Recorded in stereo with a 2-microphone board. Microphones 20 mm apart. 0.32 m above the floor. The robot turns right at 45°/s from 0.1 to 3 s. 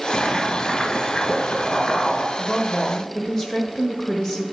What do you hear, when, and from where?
0.1 s boiling: 15° right, 1.6 m; by 2.3 s 80° left, 1.6 m
2.4 s a woman speaking: 25° left (ahead or behind), 1.0 m